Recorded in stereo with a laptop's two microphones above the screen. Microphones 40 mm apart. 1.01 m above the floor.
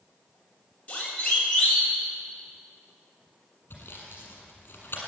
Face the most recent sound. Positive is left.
turn(degrees=55)  # may be behind; listen again after turning